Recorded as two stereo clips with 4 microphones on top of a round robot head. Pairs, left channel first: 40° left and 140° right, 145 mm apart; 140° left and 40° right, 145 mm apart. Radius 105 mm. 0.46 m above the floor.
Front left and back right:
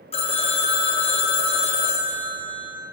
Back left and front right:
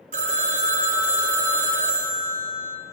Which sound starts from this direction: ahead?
A phone ringing, at 0.1 s.